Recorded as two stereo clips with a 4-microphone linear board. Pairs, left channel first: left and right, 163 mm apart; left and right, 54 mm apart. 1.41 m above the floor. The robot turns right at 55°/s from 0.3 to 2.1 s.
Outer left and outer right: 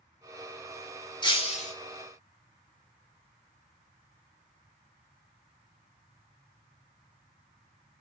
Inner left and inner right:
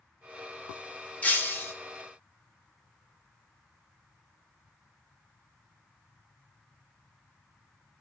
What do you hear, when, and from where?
1.2 s breaking glass: 30° left (ahead or behind), 1.7 m; by 1.7 s 50° left (ahead or behind), 1.7 m